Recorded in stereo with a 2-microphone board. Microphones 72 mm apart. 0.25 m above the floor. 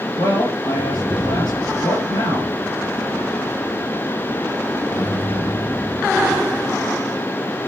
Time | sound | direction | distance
0.2 | a man speaking | 70° left (ahead or behind) | 5.5 m